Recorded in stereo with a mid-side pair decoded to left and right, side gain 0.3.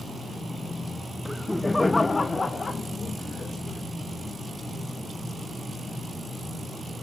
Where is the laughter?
5° right, 0.9 m; by 3.8 s 55° left, 2.5 m.